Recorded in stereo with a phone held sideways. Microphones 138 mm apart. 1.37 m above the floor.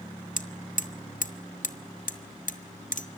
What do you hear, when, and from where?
0.4 s hammering: 70° left (ahead or behind), 1.6 m